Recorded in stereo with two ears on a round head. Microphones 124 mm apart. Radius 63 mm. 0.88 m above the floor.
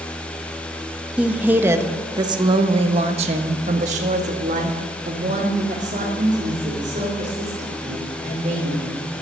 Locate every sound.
1.2 s a woman speaking: 10° right (ahead or behind), 1.3 m; by 9.0 s 50° right (ahead or behind), 4 m